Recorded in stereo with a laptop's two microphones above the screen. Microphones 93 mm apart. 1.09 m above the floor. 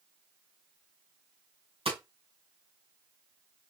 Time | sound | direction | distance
1.9 | hammering | 85° right | 2.5 m